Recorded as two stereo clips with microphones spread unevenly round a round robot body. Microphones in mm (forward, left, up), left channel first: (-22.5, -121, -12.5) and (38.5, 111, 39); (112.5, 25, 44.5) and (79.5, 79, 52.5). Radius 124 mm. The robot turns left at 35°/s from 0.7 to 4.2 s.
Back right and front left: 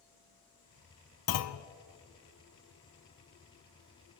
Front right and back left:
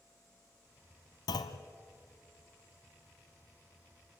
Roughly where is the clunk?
Right.